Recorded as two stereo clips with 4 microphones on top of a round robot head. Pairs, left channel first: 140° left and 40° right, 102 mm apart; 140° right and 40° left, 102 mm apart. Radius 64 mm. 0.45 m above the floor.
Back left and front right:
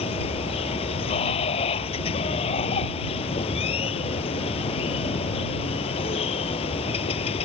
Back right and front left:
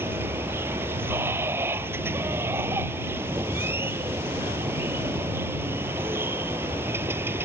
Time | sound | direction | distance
0.0 | running water | 110° left | ?